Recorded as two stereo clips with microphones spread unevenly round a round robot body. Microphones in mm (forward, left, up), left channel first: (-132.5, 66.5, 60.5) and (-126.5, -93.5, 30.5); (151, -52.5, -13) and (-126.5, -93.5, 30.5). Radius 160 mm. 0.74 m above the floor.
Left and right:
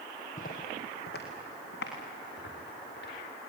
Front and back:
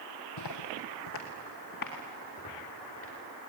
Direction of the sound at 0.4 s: 40° left.